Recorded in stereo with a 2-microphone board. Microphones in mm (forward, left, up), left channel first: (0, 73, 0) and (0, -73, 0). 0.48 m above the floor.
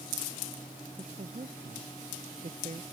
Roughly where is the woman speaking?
Right.